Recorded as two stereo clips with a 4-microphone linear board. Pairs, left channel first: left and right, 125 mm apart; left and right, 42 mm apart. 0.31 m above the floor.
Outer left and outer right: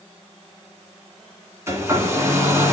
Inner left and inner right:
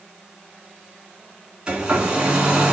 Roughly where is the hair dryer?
Right.